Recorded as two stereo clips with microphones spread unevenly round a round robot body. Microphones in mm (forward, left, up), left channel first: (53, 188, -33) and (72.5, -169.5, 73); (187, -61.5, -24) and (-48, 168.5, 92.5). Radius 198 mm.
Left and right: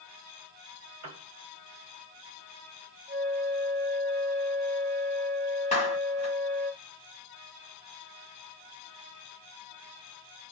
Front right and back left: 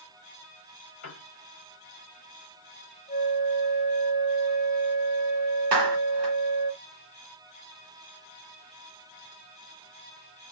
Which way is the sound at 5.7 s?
135° left.